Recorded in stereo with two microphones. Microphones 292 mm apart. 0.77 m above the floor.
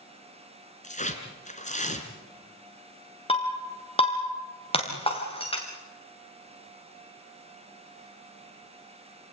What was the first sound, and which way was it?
Tearing paper, 25° left (ahead or behind).